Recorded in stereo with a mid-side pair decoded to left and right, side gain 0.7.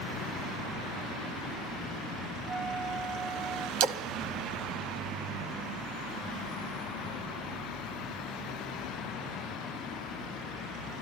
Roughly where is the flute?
Ahead right.